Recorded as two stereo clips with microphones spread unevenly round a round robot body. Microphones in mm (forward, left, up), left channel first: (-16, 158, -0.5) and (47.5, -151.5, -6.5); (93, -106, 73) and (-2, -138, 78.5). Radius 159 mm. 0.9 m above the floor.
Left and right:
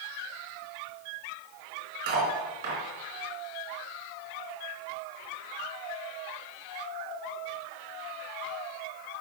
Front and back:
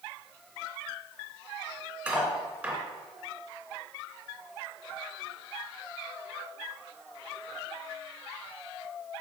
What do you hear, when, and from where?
2.1 s cutlery clinking: 80° right, 2.5 m